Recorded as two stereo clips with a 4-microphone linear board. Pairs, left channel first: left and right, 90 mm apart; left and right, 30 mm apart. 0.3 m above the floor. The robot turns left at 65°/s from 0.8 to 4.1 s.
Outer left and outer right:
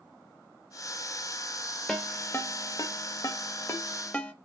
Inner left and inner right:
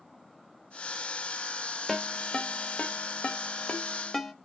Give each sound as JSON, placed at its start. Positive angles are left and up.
{"t": 1.9, "sound": "a ringtone", "side_deg": 10, "distance_m": 0.5}